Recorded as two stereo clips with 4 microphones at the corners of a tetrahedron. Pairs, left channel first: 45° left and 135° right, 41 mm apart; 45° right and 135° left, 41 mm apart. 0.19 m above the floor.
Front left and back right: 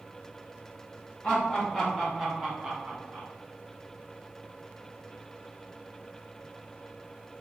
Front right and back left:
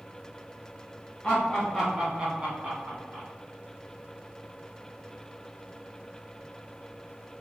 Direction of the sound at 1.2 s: 15° left.